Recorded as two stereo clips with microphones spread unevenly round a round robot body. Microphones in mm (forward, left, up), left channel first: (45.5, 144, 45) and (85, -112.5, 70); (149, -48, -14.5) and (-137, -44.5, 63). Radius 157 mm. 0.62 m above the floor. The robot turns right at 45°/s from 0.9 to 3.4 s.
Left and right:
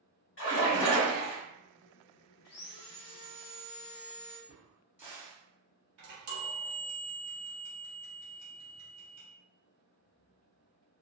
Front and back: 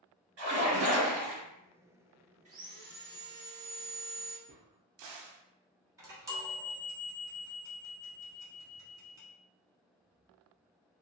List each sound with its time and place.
0.4 s a splash: 130° left, 1.7 m; by 1.4 s 150° left, 1.7 m
2.5 s sawing: 105° left, 0.7 m; by 4.4 s 150° left, 0.7 m
4.5 s a crack: 165° right, 0.5 m
6.0 s a chime: 90° right, 1.2 m